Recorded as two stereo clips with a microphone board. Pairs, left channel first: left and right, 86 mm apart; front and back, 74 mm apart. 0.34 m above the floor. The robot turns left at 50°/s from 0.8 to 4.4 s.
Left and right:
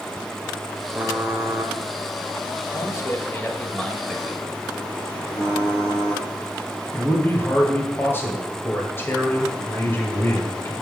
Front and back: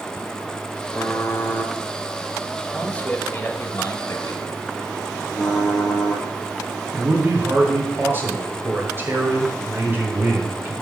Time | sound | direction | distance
0.9 | typing on a keyboard | 25° right | 1.1 m
2.7 | a man speaking | 75° left | 1.1 m
5.3 | typing on a keyboard | 85° left | 4.5 m
6.9 | a man speaking | 140° left | 1.7 m